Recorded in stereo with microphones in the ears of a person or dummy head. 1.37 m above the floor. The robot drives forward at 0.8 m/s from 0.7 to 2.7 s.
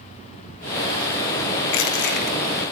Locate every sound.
1.7 s crushing: 75° left (ahead or behind), 1.0 m; by 2.4 s 50° left (ahead or behind), 1.3 m